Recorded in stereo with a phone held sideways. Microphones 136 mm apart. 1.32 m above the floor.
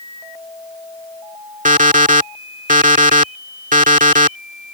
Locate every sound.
1.6 s an alarm clock: 70° right (ahead or behind)